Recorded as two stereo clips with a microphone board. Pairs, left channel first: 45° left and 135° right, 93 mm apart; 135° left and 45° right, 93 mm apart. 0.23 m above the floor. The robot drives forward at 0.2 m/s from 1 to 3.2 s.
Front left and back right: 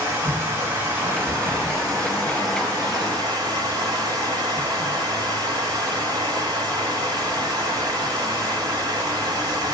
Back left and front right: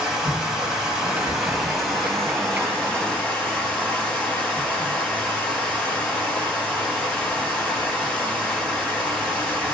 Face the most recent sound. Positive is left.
turn(degrees=-150)